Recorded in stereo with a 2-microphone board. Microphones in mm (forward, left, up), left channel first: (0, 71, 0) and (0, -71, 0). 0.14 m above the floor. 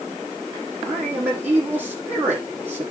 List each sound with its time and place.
0.8 s a man speaking: 15° right (ahead or behind), 6.5 m